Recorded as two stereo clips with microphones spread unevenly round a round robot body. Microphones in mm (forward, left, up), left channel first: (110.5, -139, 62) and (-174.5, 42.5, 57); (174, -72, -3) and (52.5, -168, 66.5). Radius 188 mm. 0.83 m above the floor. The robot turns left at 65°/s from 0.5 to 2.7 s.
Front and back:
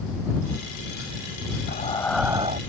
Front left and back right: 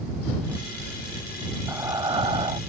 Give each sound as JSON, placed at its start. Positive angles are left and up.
{"t": 1.7, "sound": "breathing", "azimuth_deg": -90}